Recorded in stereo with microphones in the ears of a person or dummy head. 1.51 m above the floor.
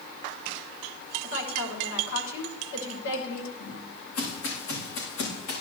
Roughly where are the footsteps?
Left.